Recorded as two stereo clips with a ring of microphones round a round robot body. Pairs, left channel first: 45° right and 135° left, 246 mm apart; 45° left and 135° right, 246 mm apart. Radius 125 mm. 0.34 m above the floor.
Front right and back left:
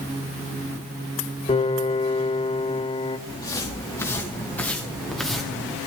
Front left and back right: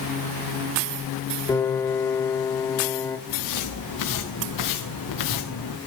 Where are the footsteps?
30° left, 3.5 m; by 5.8 s 50° left, 2.5 m.